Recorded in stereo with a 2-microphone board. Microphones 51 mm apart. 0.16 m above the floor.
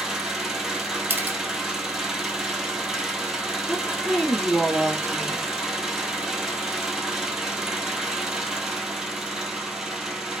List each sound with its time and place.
0.0 s an engine running: 10° right (ahead or behind), 1.1 m
1.1 s a camera shutter: 45° right (ahead or behind), 1.2 m
3.7 s a woman speaking: 25° left (ahead or behind), 3.5 m